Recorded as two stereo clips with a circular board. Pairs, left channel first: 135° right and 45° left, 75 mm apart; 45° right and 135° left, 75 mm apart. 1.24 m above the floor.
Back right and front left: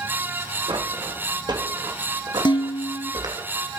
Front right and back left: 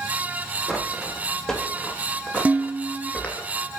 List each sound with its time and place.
0.7 s footsteps: 40° left, 5 m; by 3.5 s 25° left, 4.5 m
2.5 s dishes clattering: 150° right, 1.1 m